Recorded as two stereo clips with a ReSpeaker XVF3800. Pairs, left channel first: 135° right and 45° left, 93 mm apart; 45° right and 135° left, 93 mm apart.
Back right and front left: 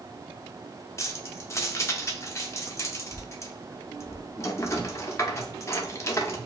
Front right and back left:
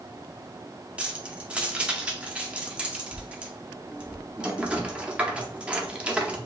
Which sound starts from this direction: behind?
Keys jangling, at 1.0 s.